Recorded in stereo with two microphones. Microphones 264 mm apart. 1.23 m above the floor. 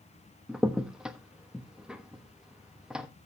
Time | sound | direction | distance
0.5 | a crack | 5° right (ahead or behind) | 1.0 m